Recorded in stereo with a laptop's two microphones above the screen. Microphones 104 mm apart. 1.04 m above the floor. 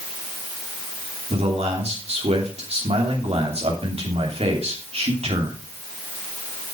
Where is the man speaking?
75° right (ahead or behind), 3 m.